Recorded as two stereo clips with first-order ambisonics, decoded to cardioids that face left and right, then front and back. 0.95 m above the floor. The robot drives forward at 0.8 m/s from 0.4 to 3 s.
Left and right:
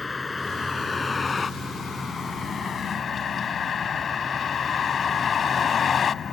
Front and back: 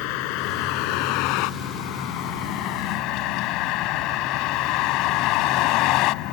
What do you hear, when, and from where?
0.0 s a vehicle: 15° left; by 6.3 s 25° left